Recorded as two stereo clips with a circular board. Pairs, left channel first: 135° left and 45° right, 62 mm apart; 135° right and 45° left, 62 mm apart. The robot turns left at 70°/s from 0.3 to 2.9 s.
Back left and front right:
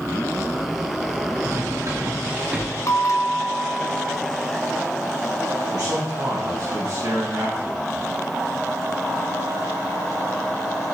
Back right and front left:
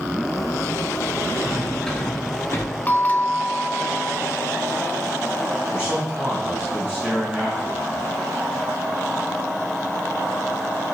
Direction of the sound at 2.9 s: 165° left.